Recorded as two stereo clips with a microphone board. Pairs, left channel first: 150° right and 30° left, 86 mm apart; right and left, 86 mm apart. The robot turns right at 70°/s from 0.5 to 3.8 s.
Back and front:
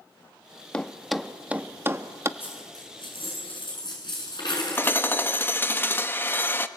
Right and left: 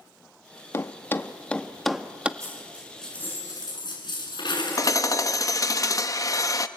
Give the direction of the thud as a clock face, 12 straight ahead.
3 o'clock.